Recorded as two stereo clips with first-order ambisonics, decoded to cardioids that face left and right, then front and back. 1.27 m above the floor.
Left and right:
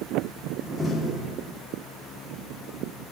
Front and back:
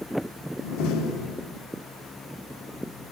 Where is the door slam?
5° right, 1.7 m.